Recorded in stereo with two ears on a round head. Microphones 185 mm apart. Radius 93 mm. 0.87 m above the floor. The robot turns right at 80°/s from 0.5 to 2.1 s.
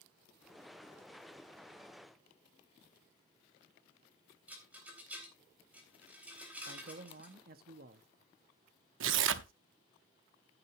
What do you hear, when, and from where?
4.5 s a rattle: 5° right (ahead or behind), 3.5 m
6.7 s a man speaking: 50° right (ahead or behind), 1.3 m
9.0 s tearing paper: 65° right (ahead or behind), 0.9 m